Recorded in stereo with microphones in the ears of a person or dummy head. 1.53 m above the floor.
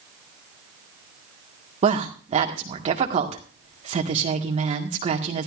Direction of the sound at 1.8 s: 30° right (ahead or behind).